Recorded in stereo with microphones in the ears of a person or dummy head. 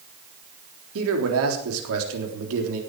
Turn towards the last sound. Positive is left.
turn(degrees=-80)